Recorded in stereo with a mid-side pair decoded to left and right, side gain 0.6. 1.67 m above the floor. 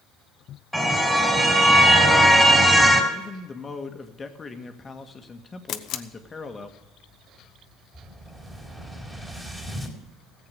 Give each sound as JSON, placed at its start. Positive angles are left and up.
{"t": 0.7, "sound": "a car horn", "azimuth_deg": -5, "distance_m": 4.0}
{"t": 3.1, "sound": "a man speaking", "azimuth_deg": 25, "distance_m": 1.8}
{"t": 5.7, "sound": "a camera shutter", "azimuth_deg": 60, "distance_m": 1.0}
{"t": 7.9, "sound": "an explosion", "azimuth_deg": -15, "distance_m": 4.0}